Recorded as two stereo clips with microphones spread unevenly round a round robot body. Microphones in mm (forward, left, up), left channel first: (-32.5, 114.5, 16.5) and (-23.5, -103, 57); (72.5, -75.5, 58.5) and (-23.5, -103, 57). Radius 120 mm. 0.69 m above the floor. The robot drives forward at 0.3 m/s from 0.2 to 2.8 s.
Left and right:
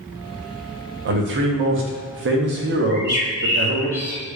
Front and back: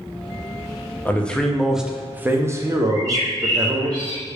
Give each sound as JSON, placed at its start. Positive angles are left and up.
{"t": 1.1, "sound": "a man speaking", "azimuth_deg": -55, "distance_m": 0.7}
{"t": 2.9, "sound": "a bird", "azimuth_deg": -175, "distance_m": 1.3}